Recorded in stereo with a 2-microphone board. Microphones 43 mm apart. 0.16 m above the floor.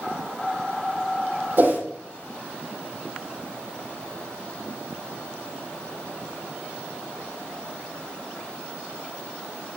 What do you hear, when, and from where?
1.6 s a whoosh: 55° right (ahead or behind), 4 m